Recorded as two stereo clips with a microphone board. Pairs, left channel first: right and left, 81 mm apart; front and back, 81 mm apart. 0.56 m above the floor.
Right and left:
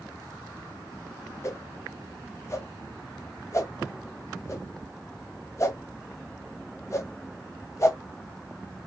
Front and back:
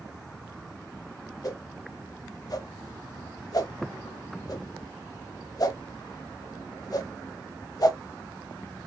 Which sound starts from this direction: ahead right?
A whoosh, at 1.4 s.